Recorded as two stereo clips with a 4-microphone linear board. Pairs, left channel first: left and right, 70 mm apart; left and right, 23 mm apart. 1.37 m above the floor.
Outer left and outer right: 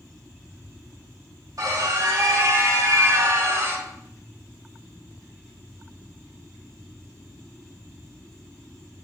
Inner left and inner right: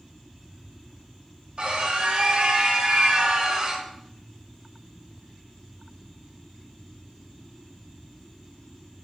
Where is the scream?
60° right (ahead or behind), 3 m; by 3.9 s 35° right (ahead or behind), 1.7 m.